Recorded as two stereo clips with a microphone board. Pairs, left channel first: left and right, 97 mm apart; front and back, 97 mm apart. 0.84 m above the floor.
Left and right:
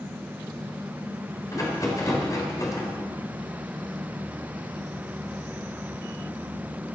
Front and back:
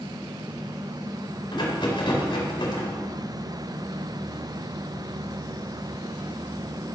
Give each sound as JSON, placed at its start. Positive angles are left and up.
{"t": 1.5, "sound": "a rattle", "azimuth_deg": 35, "distance_m": 4.0}